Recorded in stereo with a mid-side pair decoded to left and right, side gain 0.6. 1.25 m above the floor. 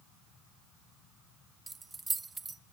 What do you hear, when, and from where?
1.7 s keys jangling: 20° right, 0.9 m